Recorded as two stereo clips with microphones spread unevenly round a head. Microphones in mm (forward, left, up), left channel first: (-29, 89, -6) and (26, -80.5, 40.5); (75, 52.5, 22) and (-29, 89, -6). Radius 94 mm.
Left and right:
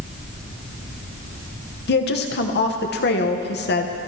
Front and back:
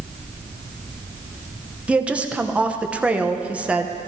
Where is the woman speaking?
85° left, 1.1 m.